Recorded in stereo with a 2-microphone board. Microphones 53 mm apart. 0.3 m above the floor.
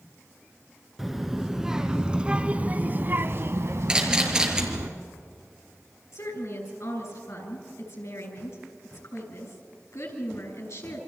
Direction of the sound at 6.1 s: 65° left (ahead or behind).